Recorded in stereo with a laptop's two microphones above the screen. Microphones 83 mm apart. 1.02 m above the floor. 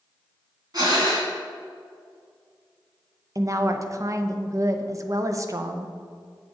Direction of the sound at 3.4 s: 40° right (ahead or behind).